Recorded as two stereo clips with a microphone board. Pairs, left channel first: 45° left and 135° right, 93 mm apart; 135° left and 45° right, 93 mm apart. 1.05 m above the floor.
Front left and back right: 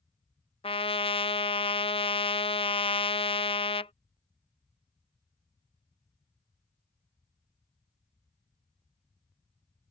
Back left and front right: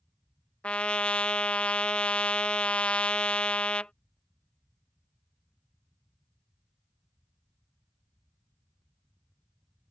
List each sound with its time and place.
0.6 s a trumpet: 55° left